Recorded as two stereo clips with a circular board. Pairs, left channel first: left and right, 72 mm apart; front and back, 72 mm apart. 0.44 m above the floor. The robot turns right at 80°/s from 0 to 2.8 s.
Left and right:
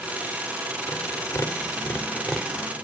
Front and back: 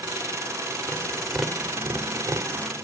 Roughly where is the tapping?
Ahead left.